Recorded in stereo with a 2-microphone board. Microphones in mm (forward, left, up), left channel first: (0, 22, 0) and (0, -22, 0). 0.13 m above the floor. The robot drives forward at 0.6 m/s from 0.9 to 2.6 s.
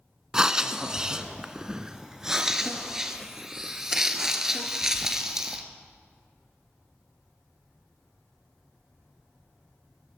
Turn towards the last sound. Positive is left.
turn(degrees=-10)  # may be behind; listen again after turning